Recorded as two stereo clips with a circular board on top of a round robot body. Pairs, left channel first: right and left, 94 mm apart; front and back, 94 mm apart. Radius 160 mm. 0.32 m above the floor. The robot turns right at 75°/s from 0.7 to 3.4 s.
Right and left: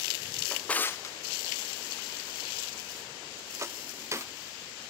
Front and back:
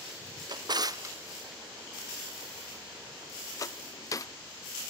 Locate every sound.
0.5 s a drawer: 165° right, 0.6 m; by 4.3 s 40° left, 0.6 m